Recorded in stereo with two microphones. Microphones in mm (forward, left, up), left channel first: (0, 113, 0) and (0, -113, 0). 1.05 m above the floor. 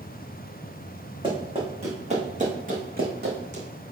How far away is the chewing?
No chewing in this recording.